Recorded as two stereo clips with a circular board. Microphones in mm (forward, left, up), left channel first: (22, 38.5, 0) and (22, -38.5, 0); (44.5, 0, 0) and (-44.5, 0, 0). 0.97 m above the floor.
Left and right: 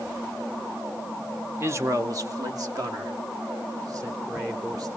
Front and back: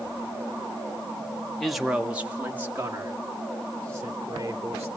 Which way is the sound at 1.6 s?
85° right.